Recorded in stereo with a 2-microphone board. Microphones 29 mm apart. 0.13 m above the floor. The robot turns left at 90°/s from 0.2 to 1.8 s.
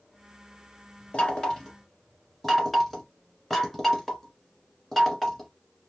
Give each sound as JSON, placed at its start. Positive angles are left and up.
{"t": 1.1, "sound": "knocking", "side_deg": 35, "distance_m": 1.4}